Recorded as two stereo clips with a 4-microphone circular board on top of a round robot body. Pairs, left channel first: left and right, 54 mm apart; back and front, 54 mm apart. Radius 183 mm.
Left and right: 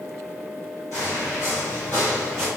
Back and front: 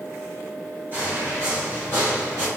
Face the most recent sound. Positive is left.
turn(degrees=-10)